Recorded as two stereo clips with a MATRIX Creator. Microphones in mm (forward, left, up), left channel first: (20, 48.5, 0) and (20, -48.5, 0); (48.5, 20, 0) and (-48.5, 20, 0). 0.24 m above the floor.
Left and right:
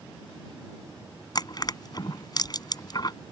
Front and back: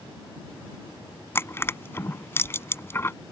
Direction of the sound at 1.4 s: 60° left.